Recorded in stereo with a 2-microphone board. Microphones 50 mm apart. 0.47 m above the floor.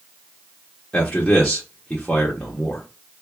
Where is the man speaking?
25° left (ahead or behind), 0.8 m.